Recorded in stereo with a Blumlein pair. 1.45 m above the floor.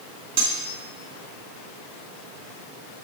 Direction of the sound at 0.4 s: 50° right.